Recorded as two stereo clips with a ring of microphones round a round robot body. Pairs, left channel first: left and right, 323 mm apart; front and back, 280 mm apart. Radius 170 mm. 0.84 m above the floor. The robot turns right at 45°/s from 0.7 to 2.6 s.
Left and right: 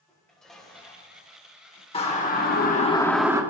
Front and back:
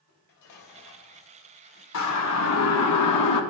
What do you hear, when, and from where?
0.1 s dishes clattering: straight ahead, 3 m; by 1.8 s 55° left, 3 m
1.9 s a siren: 15° left, 2.5 m; by 3.4 s 10° right, 1.6 m